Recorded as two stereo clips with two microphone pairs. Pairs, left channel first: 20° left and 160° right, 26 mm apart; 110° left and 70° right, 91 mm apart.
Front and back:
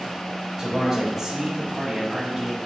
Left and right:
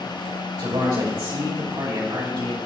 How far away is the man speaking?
About 2.5 m.